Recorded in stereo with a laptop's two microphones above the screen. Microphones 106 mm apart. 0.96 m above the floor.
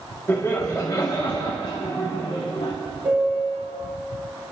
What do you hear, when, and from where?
0.3 s laughter: 25° left (ahead or behind), 1.7 m; by 2.7 s 70° left (ahead or behind), 2 m
3.0 s a piano: 20° right (ahead or behind), 3.5 m